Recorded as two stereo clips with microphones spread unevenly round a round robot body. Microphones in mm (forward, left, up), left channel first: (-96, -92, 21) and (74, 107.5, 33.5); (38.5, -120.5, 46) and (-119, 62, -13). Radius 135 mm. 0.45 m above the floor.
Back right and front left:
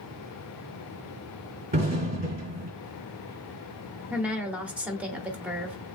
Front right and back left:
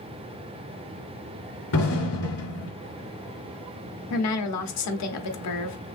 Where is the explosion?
15° right, 3.5 m.